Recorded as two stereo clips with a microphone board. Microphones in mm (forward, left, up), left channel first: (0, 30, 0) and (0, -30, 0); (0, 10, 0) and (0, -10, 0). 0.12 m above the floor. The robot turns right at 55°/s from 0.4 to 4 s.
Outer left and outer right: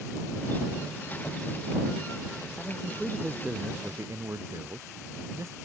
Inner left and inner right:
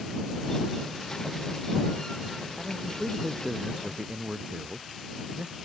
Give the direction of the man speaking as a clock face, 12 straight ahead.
7 o'clock.